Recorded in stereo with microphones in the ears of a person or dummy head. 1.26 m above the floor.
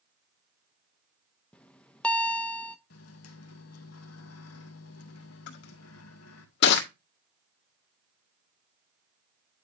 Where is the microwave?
70° left (ahead or behind), 1.5 m.